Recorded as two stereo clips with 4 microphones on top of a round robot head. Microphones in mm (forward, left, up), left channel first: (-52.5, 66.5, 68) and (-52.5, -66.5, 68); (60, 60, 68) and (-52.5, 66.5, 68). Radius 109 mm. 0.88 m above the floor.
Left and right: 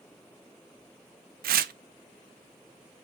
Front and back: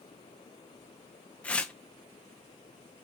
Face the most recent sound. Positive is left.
turn(degrees=-85)